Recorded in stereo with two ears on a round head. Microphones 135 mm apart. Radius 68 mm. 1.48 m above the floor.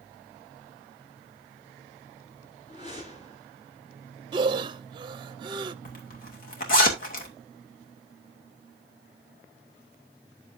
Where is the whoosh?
45° left (ahead or behind), 9 m.